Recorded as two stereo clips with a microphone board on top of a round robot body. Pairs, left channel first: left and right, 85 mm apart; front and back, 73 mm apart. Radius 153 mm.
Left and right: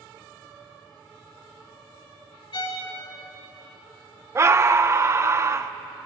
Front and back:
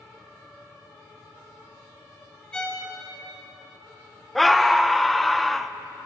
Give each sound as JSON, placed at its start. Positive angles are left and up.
{"t": 2.5, "sound": "a violin", "azimuth_deg": 75, "distance_m": 2.0}
{"t": 4.3, "sound": "a scream", "azimuth_deg": -90, "distance_m": 0.6}